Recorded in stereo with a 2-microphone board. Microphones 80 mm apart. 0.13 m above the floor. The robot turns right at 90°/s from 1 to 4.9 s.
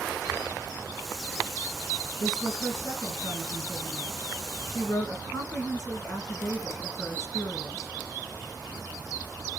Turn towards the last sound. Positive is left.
turn(degrees=60)